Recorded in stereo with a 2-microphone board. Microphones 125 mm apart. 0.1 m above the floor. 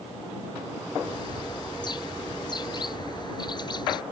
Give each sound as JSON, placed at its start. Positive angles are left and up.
{"t": 1.0, "sound": "a bird", "side_deg": 40}